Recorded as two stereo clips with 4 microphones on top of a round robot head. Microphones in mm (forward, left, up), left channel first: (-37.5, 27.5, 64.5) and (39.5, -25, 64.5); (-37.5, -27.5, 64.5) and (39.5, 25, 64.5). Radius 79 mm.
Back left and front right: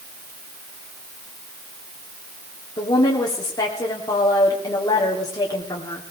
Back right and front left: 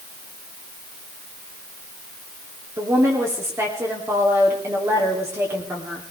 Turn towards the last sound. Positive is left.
turn(degrees=95)